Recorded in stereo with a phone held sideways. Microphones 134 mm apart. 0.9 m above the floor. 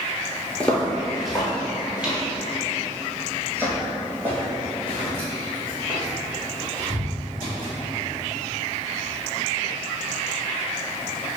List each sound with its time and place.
0.6 s footsteps: 10° left (ahead or behind), 1.0 m; by 7.7 s 20° right (ahead or behind), 4.5 m